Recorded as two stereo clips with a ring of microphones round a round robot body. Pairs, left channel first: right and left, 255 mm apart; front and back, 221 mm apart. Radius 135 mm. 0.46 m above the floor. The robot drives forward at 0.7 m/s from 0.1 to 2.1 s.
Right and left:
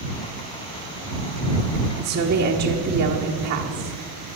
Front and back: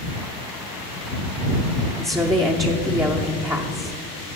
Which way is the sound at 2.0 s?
105° left.